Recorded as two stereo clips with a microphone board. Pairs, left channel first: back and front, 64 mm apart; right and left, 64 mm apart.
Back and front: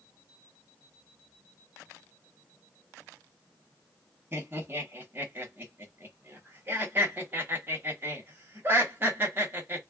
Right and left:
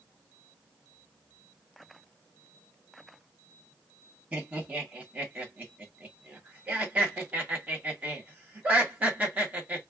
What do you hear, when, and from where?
4.3 s laughter: 40° left, 1.3 m